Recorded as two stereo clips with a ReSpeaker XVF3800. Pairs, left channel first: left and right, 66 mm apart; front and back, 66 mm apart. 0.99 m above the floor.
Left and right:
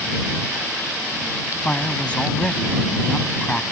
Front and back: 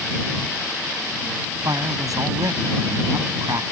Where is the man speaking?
160° left.